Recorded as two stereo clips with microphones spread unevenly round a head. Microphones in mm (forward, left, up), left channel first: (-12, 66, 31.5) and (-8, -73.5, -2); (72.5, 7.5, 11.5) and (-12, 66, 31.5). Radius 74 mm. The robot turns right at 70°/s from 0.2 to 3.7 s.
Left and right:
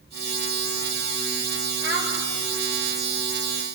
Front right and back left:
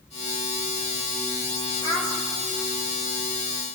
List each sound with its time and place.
1.8 s a child speaking: 100° right, 4.5 m; by 2.1 s 80° right, 4.5 m